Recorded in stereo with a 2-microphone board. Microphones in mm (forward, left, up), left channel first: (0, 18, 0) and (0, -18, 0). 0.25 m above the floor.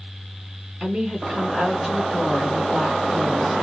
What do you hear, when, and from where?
0.8 s a woman speaking: 15° right (ahead or behind), 1.4 m